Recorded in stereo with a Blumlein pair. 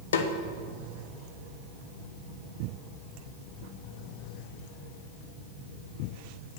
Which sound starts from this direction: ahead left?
A snare drum, at 0.1 s.